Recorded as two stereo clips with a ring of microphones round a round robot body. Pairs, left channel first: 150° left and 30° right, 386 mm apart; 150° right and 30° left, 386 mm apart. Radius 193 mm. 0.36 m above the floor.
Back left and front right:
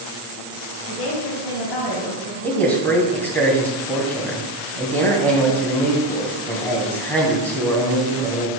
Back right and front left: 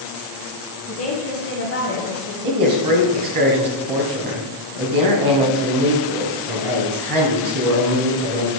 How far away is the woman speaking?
About 3.5 m.